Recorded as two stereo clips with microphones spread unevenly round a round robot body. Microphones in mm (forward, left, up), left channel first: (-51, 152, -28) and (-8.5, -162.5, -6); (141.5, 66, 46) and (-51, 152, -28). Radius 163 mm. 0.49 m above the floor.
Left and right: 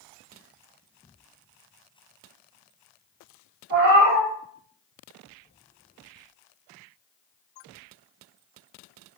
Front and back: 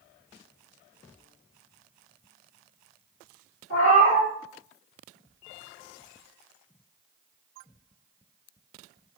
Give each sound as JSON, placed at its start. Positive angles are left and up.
{"t": 3.7, "sound": "a cat meowing", "azimuth_deg": -40, "distance_m": 1.0}